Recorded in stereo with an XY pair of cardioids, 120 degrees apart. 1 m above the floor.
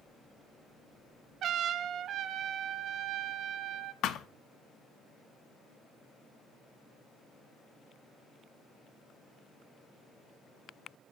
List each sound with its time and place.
1.4 s a trumpet: 60° right, 0.8 m
4.0 s a thud: 65° left, 0.7 m